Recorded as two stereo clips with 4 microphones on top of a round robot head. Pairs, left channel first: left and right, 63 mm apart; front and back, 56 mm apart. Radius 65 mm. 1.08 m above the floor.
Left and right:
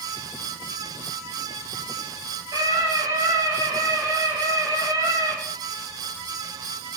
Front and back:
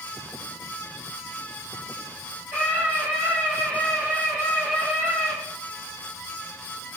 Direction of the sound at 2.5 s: 110° right.